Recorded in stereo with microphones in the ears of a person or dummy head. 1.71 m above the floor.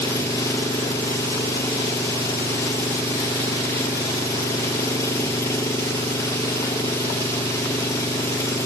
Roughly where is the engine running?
Centre.